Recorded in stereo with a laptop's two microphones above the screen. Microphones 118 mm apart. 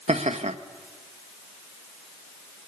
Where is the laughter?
70° right (ahead or behind), 1.3 m.